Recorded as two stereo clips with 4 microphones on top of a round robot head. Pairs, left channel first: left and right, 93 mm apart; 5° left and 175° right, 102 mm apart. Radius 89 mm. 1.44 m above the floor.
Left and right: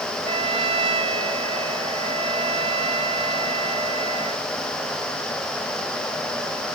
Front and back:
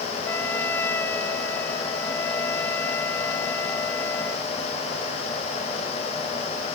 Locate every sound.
0.2 s a trumpet: 75° right